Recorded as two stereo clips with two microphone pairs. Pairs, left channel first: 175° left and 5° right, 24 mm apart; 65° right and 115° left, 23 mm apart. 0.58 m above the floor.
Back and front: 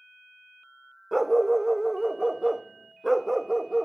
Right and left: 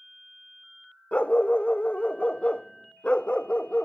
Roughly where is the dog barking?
Right.